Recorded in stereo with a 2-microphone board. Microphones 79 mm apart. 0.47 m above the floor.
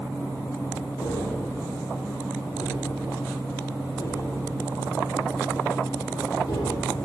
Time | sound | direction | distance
1.0 | tapping | 60° left (ahead or behind) | 9 m